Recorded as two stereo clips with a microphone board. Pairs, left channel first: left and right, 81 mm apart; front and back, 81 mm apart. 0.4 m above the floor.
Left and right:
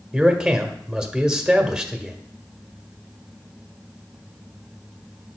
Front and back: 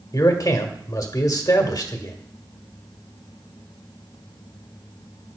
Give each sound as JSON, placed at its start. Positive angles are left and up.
{"t": 0.1, "sound": "a man speaking", "azimuth_deg": -10, "distance_m": 1.3}